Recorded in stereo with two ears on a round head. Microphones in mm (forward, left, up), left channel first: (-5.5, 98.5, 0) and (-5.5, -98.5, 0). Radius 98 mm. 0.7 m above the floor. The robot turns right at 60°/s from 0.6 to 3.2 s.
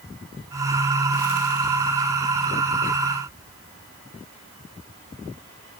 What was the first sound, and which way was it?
Only background noise.